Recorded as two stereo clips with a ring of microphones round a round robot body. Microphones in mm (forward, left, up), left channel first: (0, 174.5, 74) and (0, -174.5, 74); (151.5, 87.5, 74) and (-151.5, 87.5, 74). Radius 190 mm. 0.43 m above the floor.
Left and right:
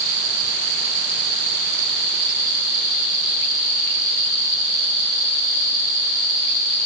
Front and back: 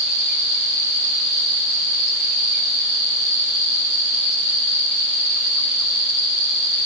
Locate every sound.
Only background noise.